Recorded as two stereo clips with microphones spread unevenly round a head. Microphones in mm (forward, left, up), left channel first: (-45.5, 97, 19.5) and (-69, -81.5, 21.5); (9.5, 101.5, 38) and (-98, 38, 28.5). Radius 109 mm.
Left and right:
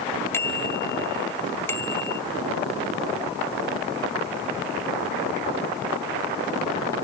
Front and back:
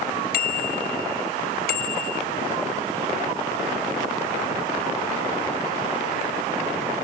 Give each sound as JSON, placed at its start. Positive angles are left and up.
{"t": 0.3, "sound": "a bicycle bell", "azimuth_deg": 0}